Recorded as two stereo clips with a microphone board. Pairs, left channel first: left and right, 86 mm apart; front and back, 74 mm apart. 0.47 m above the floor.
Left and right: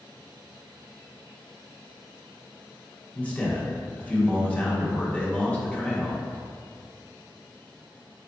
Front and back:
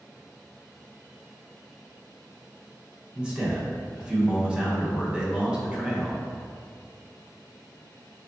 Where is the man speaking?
135° left, 0.7 m.